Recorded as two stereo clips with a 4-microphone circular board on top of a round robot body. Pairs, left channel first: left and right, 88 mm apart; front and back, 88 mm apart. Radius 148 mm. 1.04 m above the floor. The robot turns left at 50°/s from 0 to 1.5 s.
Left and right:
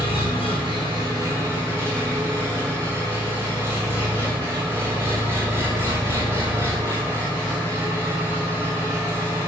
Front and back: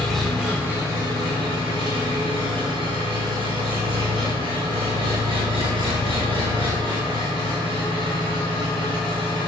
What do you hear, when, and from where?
0.0 s an engine running: 80° right, 5.5 m; by 9.5 s 155° right, 5.5 m